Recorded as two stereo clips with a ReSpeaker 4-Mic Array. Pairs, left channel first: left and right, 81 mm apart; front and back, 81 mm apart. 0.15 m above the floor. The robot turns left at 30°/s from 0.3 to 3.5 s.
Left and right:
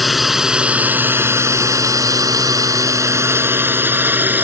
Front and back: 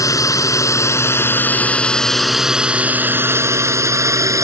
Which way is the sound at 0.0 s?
Straight ahead.